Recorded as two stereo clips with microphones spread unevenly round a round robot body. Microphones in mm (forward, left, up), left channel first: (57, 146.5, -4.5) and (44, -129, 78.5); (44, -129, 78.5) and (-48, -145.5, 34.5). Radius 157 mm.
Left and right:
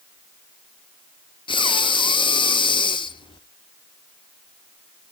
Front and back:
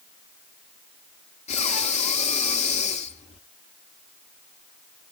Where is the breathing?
20° left, 0.6 m.